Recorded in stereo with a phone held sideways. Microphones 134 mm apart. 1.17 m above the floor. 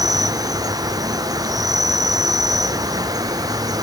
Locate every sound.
0.0 s an insect: 30° right (ahead or behind), 0.8 m